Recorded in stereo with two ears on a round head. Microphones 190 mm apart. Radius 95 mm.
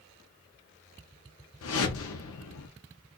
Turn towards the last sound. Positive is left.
turn(degrees=70)  # may be behind; listen again after turning